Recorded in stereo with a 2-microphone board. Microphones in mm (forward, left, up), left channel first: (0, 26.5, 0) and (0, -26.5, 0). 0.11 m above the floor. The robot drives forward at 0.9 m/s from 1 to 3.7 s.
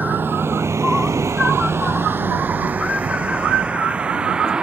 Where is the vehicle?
35° right (ahead or behind); by 4.6 s 15° right (ahead or behind).